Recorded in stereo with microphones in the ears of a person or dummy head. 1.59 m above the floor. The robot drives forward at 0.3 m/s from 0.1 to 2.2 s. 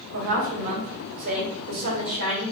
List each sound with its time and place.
0.1 s a woman speaking: 70° right (ahead or behind), 1.3 m; by 2.5 s 50° right (ahead or behind), 1.5 m